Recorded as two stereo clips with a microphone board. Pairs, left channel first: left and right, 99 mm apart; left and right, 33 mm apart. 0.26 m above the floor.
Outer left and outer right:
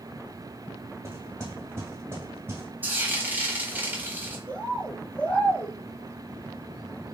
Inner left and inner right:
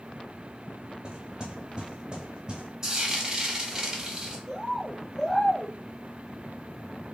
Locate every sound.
1.0 s knocking: 30° right (ahead or behind), 1.4 m
2.8 s frying: 20° right (ahead or behind), 1.2 m
4.5 s a bird: 15° left (ahead or behind), 1.4 m